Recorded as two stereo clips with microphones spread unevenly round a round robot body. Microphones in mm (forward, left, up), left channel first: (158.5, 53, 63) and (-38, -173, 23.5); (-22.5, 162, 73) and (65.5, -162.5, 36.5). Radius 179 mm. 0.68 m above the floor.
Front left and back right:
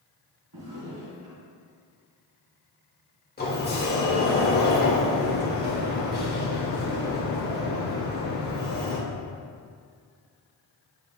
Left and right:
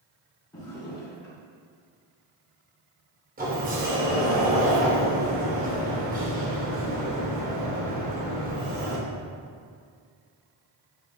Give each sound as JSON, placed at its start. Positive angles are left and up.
{"t": 0.5, "sound": "a drawer", "azimuth_deg": -175, "distance_m": 2.5}
{"t": 3.4, "sound": "a sliding door", "azimuth_deg": -10, "distance_m": 2.0}